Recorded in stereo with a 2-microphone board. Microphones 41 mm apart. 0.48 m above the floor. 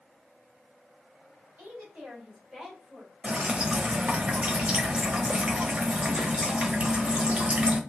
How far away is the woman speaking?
About 1.7 m.